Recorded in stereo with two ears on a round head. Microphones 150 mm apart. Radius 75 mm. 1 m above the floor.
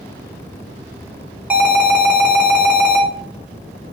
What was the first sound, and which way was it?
An alarm, 10° right (ahead or behind).